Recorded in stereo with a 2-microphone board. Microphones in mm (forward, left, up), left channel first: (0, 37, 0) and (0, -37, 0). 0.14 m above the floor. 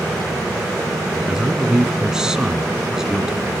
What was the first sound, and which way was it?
A man speaking, 10° right (ahead or behind).